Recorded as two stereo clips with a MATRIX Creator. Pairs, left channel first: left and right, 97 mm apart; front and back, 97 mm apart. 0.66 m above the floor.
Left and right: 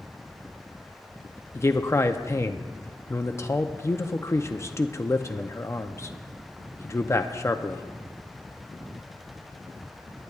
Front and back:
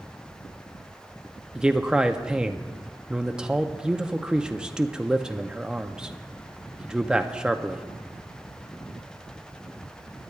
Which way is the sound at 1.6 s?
110° left.